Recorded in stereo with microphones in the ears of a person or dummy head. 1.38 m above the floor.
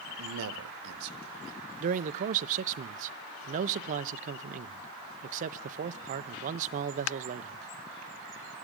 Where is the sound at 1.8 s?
40° right (ahead or behind), 0.8 m.